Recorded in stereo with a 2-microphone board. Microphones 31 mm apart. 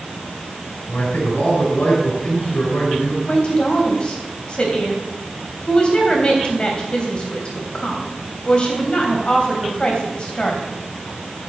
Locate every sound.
0.9 s a man speaking: 70° left (ahead or behind), 6 m
3.3 s a woman speaking: 35° left (ahead or behind), 3.5 m